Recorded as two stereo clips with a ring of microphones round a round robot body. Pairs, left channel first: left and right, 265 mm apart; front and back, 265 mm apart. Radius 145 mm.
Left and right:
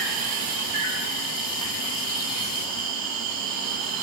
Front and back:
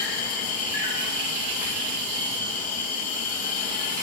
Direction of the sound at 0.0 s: 60° right.